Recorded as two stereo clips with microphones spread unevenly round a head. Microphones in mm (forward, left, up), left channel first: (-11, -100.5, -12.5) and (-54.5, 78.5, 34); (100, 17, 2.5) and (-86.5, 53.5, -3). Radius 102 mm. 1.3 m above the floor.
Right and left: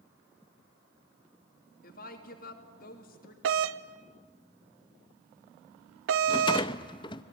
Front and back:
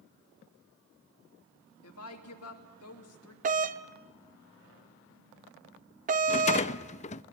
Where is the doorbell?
125° left, 0.8 m.